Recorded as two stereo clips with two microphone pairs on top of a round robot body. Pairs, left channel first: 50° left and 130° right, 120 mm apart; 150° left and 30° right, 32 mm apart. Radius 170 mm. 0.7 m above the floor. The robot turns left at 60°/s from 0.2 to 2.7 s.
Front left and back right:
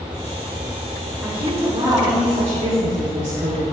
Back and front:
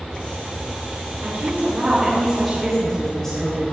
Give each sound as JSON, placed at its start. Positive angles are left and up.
{"t": 1.2, "sound": "a woman speaking", "azimuth_deg": -40, "distance_m": 4.5}